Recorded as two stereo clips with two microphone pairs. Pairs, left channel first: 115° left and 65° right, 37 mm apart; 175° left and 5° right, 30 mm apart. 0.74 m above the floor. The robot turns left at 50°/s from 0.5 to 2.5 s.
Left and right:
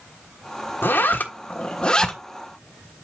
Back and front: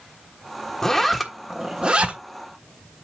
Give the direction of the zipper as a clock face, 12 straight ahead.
9 o'clock.